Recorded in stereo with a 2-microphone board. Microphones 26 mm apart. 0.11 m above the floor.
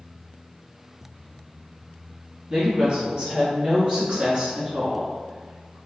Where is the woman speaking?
25° right (ahead or behind), 1.6 m; by 5.8 s 15° right (ahead or behind), 1.6 m.